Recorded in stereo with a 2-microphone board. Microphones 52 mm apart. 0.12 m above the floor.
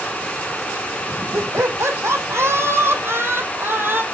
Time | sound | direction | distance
1.3 | laughter | 60° right (ahead or behind) | 5.5 m